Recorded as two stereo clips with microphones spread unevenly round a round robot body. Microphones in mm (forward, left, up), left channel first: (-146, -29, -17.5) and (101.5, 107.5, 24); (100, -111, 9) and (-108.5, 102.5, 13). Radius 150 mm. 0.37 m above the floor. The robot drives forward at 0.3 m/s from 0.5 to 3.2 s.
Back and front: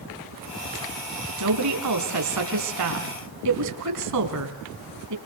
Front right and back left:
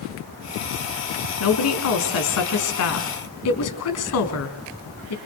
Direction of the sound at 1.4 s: 10° right.